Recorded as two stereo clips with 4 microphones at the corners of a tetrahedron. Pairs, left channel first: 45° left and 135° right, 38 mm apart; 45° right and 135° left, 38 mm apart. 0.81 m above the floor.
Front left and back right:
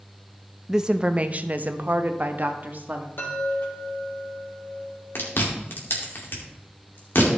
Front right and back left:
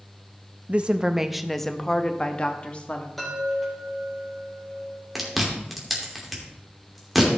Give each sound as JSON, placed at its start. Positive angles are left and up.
{"t": 0.7, "sound": "a woman speaking", "azimuth_deg": 150, "distance_m": 0.6}
{"t": 3.2, "sound": "a chime", "azimuth_deg": 40, "distance_m": 3.5}
{"t": 5.2, "sound": "chewing", "azimuth_deg": 45, "distance_m": 2.5}